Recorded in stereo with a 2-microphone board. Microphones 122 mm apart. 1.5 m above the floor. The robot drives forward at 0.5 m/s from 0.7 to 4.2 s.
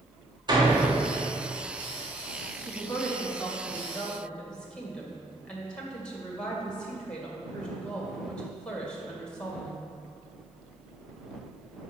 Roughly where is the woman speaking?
Centre.